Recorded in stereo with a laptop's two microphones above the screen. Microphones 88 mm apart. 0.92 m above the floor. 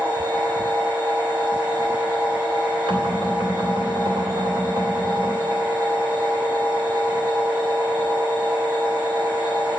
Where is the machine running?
20° right (ahead or behind), 5.5 m.